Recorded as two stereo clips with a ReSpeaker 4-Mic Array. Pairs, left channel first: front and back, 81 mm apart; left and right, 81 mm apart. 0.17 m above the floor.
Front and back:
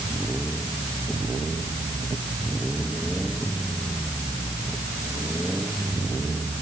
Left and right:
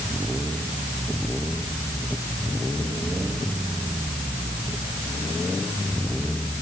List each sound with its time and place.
Only background noise.